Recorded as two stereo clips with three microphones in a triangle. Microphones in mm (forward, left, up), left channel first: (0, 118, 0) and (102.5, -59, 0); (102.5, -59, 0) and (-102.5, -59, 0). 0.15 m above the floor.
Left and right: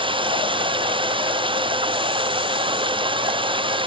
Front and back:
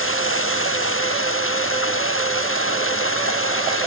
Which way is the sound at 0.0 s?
5° left.